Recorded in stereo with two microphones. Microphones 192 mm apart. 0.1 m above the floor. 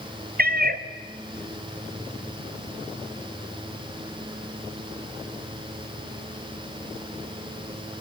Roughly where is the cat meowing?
Right.